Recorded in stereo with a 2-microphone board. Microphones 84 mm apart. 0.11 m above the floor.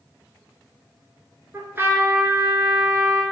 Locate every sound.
1.5 s a trumpet: 30° right (ahead or behind), 0.7 m